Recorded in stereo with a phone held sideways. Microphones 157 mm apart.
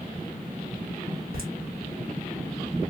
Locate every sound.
1.3 s laughter: 70° right (ahead or behind), 1.8 m